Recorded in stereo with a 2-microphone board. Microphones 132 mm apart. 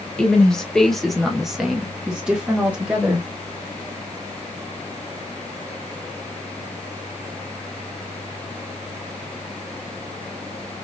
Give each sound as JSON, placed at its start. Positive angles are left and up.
{"t": 0.2, "sound": "a woman speaking", "side_deg": 5, "distance_m": 1.1}